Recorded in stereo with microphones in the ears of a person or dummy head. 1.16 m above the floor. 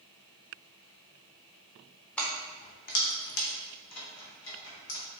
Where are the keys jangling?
5° left (ahead or behind), 0.6 m; by 5.0 s 85° left, 1.8 m.